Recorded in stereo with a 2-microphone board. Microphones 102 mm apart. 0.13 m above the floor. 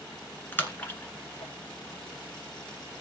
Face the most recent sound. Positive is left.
turn(degrees=20)  # may be behind; listen again after turning